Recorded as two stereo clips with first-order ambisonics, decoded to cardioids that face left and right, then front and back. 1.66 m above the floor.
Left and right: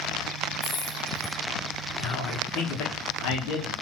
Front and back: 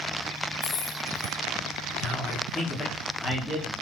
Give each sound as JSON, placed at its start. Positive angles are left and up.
{"t": 0.6, "sound": "keys jangling", "azimuth_deg": 20, "distance_m": 1.7}
{"t": 2.0, "sound": "a man speaking", "azimuth_deg": 75, "distance_m": 2.5}